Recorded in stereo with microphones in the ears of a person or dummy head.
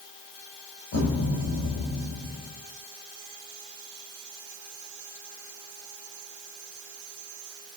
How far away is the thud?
About 2.5 m.